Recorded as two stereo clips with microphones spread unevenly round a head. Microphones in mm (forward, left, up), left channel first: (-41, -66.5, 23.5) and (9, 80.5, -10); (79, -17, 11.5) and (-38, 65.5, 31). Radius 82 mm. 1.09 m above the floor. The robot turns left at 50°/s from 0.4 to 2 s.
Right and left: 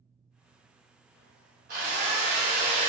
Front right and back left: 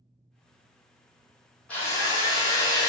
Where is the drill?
45° left, 1.4 m; by 2.9 s 30° left, 1.4 m.